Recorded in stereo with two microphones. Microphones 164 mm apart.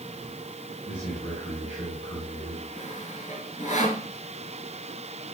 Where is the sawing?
55° left (ahead or behind), 2.5 m.